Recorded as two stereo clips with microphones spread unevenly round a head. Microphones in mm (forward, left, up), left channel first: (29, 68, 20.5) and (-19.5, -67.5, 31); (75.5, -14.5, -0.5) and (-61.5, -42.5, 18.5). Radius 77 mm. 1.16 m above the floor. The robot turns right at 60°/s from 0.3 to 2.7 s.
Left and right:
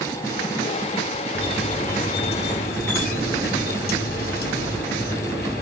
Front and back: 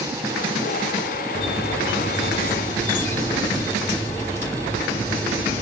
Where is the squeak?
5° left, 1.6 m; by 5.6 s 90° left, 1.6 m.